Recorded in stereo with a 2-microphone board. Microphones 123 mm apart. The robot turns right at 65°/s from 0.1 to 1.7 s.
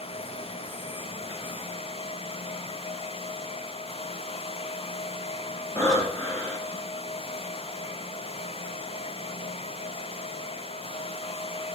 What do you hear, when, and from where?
5.8 s breathing: 20° left (ahead or behind), 1.4 m